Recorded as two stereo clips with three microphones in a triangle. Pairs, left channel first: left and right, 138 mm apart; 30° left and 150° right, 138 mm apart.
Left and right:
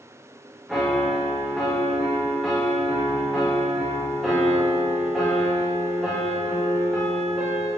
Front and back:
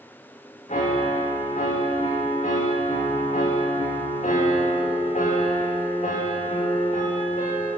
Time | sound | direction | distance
0.7 | a piano | straight ahead | 3 m